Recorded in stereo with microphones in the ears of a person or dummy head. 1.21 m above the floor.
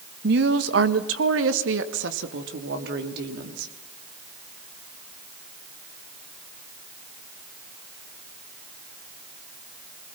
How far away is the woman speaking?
About 1.3 m.